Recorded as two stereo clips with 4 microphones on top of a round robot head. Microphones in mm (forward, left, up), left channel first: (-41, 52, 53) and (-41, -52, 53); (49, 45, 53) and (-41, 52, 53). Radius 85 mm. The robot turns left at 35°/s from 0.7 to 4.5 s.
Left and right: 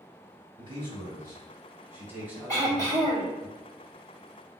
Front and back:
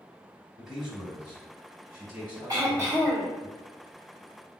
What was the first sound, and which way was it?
A man speaking, 100° right.